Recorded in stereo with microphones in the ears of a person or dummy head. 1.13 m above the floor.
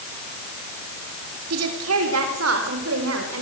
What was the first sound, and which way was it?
A woman speaking, 80° right.